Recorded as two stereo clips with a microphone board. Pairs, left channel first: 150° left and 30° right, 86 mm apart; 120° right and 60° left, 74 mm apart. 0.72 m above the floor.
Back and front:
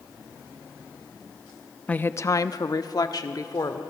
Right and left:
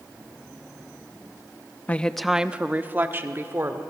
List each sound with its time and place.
1.9 s a woman speaking: 155° right, 0.6 m; by 3.8 s 110° left, 2.0 m